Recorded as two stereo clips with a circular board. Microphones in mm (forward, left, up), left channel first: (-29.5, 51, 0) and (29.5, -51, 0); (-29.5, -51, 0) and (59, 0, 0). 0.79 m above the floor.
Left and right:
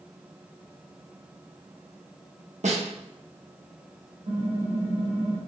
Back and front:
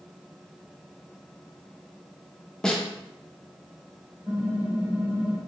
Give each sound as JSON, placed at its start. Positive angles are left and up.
{"t": 2.6, "sound": "a snare drum", "azimuth_deg": -65, "distance_m": 0.7}
{"t": 4.3, "sound": "typing on a keyboard", "azimuth_deg": -45, "distance_m": 0.9}